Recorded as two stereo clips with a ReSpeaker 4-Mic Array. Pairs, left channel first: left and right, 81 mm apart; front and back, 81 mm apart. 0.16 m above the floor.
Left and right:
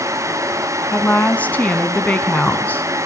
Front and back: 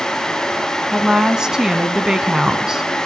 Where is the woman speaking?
115° left, 1.3 m.